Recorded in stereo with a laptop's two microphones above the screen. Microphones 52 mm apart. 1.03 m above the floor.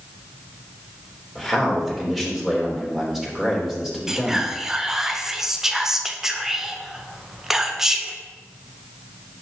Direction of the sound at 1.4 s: 5° right (ahead or behind).